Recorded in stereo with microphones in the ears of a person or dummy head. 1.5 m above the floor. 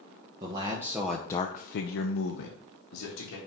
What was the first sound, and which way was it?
A man speaking, 30° right (ahead or behind).